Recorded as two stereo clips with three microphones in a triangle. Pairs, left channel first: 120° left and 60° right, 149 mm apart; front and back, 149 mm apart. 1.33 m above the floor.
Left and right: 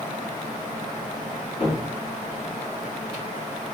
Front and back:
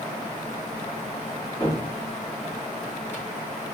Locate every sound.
1.6 s a cupboard door: 70° left, 1.6 m